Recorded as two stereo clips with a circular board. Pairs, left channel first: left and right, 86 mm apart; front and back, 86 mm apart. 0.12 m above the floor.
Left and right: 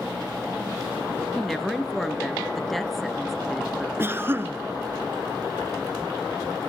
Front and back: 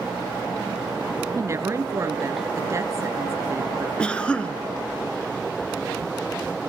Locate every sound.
1.4 s a woman speaking: straight behind, 1.8 m
4.0 s a cough: 65° right, 1.5 m